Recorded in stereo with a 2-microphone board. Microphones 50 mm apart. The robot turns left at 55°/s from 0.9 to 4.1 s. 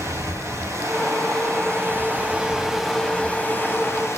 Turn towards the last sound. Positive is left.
turn(degrees=110)